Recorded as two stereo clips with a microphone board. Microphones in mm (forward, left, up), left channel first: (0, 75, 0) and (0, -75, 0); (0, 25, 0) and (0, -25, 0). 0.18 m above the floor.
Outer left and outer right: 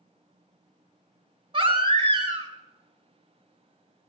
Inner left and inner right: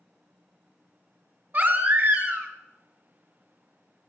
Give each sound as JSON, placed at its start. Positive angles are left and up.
{"t": 1.5, "sound": "a baby crying", "side_deg": -35, "distance_m": 0.6}